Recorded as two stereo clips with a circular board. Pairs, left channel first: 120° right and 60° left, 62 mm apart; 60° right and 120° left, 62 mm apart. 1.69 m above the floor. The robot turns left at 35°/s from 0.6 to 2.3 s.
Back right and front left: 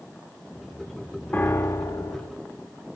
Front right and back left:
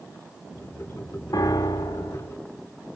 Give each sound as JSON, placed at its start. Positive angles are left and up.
{"t": 1.3, "sound": "a piano", "azimuth_deg": -60, "distance_m": 0.6}